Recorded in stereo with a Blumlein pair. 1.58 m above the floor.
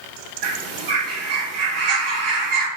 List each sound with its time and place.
0.4 s a bird: 40° right, 0.8 m